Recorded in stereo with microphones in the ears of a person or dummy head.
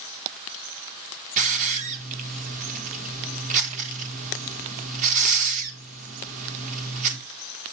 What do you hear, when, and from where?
1.4 s a hiss: 40° right (ahead or behind), 1.2 m